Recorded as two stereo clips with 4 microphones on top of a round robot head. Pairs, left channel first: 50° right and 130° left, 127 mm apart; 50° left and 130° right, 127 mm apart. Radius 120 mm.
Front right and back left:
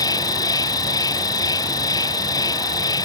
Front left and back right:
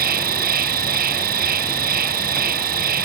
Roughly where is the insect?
Behind right.